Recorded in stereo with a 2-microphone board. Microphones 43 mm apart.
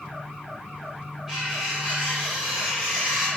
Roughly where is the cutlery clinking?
Centre.